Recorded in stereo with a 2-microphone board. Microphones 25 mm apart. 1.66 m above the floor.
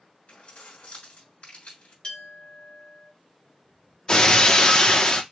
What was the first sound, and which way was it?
Keys jangling, 55° left (ahead or behind).